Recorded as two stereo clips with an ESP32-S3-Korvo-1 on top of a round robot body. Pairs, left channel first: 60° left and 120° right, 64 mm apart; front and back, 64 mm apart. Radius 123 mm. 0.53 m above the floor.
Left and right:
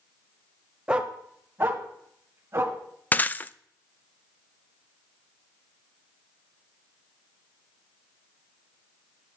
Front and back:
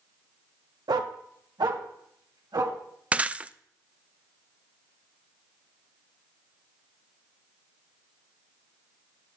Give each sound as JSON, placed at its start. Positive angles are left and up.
{"t": 0.9, "sound": "a dog barking", "azimuth_deg": 160, "distance_m": 1.0}
{"t": 3.1, "sound": "breaking glass", "azimuth_deg": 115, "distance_m": 0.5}